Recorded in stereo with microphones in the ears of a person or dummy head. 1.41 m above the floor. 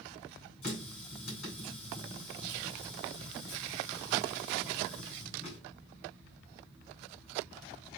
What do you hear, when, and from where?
0.6 s a running tap: 45° left (ahead or behind), 5 m